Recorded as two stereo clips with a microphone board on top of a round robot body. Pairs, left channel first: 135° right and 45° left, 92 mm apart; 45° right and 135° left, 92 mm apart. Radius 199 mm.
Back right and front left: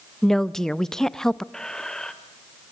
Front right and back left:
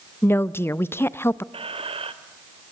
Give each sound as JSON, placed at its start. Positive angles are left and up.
{"t": 0.2, "sound": "a woman speaking", "azimuth_deg": -55, "distance_m": 1.0}
{"t": 1.5, "sound": "a squeak", "azimuth_deg": 140, "distance_m": 1.9}